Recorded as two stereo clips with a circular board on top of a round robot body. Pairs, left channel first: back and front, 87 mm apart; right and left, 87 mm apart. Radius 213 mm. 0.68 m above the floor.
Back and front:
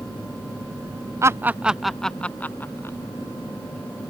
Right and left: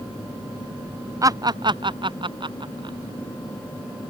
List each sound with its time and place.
1.2 s laughter: 50° left; by 3.0 s 120° left